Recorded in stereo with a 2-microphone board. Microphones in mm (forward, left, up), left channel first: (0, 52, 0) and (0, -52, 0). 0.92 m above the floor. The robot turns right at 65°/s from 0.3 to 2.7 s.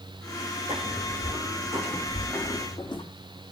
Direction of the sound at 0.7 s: 65° right (ahead or behind).